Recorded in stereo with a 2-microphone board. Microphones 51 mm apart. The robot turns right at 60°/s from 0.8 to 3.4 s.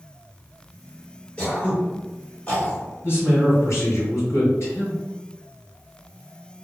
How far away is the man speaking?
About 1.8 m.